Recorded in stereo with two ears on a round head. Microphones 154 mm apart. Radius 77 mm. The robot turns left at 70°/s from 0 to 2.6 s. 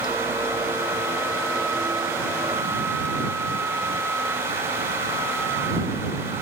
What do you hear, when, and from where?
Only background noise.